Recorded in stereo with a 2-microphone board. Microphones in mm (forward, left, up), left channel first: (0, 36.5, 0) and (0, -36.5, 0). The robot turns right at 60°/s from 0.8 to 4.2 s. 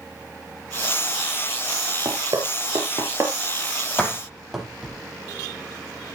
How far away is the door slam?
About 7 m.